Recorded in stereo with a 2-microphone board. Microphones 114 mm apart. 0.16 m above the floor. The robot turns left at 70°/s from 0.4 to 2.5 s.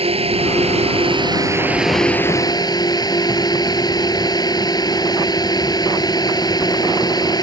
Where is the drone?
75° right; by 7.4 s 140° left.